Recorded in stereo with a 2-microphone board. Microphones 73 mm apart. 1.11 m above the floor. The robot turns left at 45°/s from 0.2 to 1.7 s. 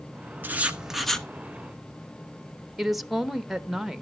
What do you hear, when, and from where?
0.4 s writing: 155° right, 1.0 m; by 1.3 s 170° left, 1.0 m
2.8 s a woman speaking: 5° right (ahead or behind), 0.9 m